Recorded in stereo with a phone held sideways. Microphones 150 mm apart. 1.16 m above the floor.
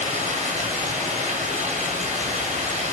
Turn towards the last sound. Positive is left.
turn(degrees=-50)  # may be behind; listen again after turning